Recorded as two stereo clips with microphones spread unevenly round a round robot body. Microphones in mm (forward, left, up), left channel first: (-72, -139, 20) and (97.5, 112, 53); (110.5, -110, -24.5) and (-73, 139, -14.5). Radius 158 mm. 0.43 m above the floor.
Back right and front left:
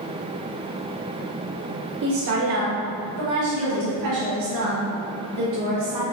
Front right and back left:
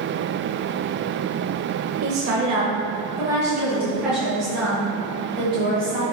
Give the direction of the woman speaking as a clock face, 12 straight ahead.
9 o'clock.